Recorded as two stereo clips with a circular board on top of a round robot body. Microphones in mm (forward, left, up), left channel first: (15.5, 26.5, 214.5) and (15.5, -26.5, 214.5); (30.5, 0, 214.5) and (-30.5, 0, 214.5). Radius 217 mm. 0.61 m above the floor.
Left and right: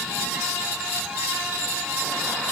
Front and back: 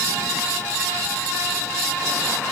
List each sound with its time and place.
Only background noise.